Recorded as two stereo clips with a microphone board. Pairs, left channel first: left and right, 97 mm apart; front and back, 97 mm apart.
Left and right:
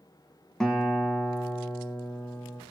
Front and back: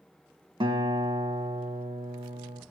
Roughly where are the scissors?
I don't hear scissors.